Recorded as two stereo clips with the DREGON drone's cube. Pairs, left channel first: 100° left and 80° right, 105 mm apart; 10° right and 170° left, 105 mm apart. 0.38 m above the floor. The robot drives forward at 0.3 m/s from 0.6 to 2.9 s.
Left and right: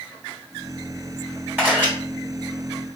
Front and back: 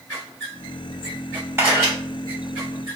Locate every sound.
1.6 s a camera shutter: 140° right, 1.6 m